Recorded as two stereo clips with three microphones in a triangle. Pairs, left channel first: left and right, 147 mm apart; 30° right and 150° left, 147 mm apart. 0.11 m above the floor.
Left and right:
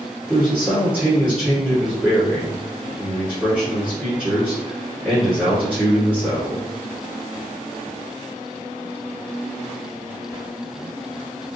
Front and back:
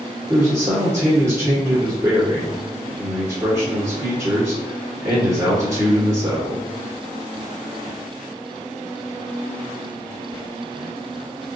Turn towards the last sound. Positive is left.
turn(degrees=-165)